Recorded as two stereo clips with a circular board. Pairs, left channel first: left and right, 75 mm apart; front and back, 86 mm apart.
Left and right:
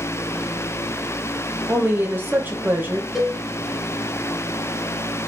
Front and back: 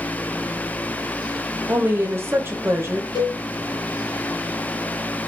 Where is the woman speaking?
135° right, 0.6 m.